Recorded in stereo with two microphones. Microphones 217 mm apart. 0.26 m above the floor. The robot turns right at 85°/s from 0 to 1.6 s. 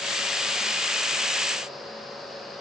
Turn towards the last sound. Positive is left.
No sound to turn to.